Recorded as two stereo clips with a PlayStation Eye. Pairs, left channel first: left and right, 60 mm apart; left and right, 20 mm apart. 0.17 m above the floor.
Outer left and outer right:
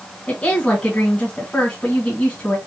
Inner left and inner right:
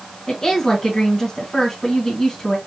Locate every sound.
0.3 s a woman speaking: 20° left (ahead or behind), 1.4 m